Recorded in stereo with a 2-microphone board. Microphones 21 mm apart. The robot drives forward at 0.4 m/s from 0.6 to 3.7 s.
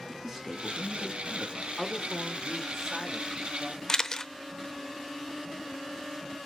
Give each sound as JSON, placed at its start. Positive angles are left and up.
{"t": 0.1, "sound": "a man speaking", "side_deg": -25, "distance_m": 3.5}
{"t": 1.8, "sound": "a man speaking", "side_deg": 10, "distance_m": 0.8}
{"t": 3.9, "sound": "a camera shutter", "side_deg": 25, "distance_m": 0.6}